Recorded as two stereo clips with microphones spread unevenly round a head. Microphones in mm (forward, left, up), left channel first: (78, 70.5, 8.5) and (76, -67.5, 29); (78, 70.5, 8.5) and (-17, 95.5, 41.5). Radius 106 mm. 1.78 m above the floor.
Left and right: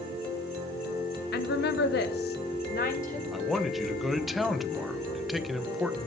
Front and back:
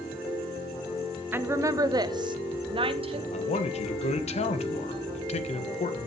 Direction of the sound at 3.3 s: 5° right.